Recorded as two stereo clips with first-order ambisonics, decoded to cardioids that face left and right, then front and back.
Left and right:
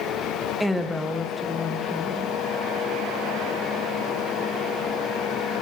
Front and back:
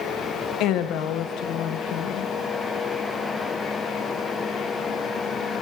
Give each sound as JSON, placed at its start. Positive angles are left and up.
{"t": 0.6, "sound": "a woman speaking", "azimuth_deg": 0, "distance_m": 0.7}